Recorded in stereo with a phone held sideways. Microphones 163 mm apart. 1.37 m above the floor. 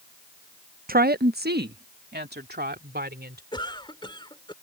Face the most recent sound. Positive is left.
turn(degrees=30)  # may be behind; listen again after turning